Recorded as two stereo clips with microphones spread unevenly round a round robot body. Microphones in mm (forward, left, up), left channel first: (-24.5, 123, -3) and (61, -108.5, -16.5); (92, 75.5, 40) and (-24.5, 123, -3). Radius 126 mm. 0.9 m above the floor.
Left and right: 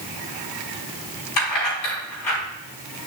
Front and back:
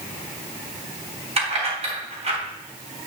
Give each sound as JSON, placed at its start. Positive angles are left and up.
{"t": 1.4, "sound": "keys jangling", "azimuth_deg": 115, "distance_m": 4.5}